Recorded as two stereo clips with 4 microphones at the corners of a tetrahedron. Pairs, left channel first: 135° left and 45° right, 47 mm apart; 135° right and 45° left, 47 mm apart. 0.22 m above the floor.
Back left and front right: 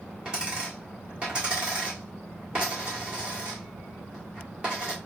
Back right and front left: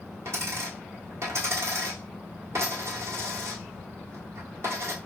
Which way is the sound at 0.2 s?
20° left.